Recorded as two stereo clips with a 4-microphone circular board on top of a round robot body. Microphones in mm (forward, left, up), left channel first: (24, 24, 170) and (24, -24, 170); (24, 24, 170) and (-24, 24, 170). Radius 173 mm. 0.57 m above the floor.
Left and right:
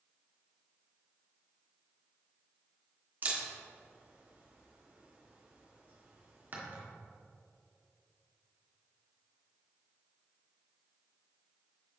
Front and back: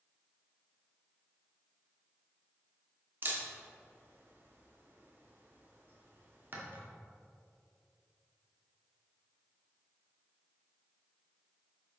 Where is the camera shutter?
140° right, 2 m.